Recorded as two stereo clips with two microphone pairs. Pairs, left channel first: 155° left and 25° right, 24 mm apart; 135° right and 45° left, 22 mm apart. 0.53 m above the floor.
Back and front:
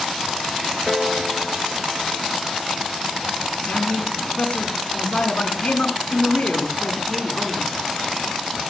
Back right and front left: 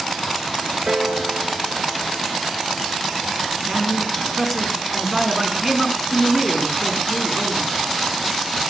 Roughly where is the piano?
Ahead left.